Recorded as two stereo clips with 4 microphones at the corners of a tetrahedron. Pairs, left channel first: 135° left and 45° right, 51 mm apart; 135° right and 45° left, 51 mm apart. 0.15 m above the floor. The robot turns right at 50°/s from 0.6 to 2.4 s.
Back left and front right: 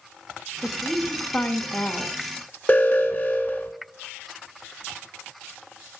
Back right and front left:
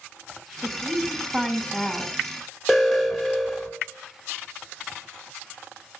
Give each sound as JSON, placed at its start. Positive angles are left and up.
{"t": 0.6, "sound": "a woman speaking", "azimuth_deg": 75, "distance_m": 1.2}
{"t": 2.7, "sound": "an alarm", "azimuth_deg": 125, "distance_m": 1.3}